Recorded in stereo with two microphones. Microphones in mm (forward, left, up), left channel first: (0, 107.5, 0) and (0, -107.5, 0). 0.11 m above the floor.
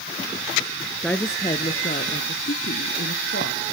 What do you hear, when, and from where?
1.0 s a woman speaking: 5° left (ahead or behind), 1.5 m; by 3.6 s 65° left (ahead or behind), 3.5 m